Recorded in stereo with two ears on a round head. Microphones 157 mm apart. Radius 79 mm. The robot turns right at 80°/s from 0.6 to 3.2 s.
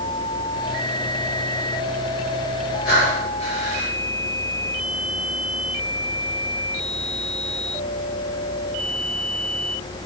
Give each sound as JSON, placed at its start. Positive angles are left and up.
{"t": 2.9, "sound": "breathing", "side_deg": 70, "distance_m": 4.5}